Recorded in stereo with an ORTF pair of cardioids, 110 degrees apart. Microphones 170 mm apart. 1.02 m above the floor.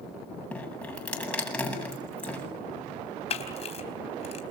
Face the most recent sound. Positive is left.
turn(degrees=40)